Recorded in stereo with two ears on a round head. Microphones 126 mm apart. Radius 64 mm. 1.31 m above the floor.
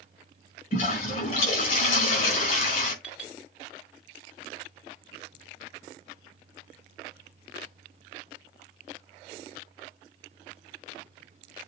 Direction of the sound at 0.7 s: 60° left (ahead or behind).